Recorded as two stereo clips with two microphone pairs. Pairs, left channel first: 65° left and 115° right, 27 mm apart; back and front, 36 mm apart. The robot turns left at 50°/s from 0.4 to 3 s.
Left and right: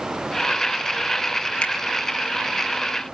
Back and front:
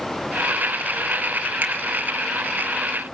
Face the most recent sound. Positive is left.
turn(degrees=-35)